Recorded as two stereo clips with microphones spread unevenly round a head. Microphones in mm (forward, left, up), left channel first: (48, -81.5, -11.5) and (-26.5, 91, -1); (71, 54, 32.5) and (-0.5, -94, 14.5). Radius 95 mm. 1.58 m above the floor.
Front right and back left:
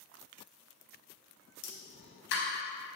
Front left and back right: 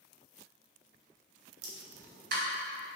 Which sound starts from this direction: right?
A pop, at 1.6 s.